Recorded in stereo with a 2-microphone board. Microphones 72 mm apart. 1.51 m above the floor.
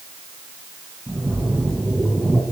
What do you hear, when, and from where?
1.1 s a splash: 15° right (ahead or behind), 5.5 m